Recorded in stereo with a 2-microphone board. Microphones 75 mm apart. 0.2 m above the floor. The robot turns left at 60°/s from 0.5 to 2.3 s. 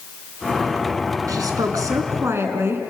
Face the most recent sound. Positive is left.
turn(degrees=-140)